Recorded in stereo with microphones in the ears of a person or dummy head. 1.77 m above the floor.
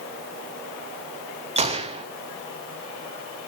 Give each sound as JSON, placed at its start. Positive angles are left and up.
{"t": 1.6, "sound": "a gunshot", "side_deg": -30, "distance_m": 0.8}